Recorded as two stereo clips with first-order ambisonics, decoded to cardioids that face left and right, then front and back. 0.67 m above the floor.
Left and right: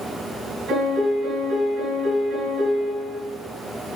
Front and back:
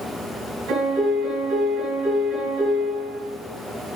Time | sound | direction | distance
0.7 | a piano | 135° right | 5.5 m